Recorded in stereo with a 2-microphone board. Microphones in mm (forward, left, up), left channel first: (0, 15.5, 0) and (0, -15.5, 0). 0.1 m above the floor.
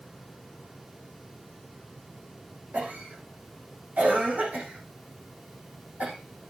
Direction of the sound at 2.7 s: 60° right (ahead or behind).